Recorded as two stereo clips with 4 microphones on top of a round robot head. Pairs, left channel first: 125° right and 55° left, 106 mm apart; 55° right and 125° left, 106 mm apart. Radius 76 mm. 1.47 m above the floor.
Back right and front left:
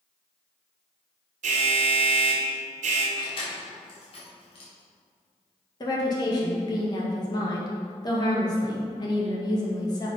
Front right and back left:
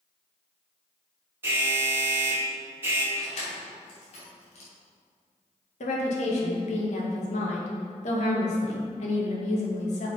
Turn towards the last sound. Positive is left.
turn(degrees=-70)